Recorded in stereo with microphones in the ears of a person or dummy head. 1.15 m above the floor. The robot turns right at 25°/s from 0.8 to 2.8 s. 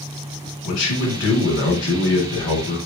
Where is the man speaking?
90° left, 1.8 m; by 2.8 s 140° left, 1.8 m.